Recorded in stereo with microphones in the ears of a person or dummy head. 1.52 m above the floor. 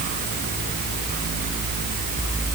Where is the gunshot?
I don't hear a gunshot.